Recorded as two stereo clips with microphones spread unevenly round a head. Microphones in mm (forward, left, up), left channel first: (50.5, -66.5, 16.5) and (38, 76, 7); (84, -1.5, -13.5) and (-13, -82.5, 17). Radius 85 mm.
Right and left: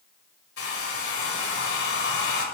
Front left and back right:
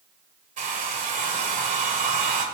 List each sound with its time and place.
0.6 s a hair dryer: 120° right, 2.0 m